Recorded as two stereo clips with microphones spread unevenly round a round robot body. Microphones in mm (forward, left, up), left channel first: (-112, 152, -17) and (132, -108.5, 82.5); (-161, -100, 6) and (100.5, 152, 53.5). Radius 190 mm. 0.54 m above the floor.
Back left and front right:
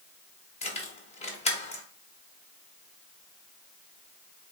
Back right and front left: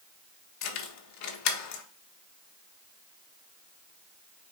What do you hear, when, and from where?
0.6 s keys jangling: 165° right, 0.9 m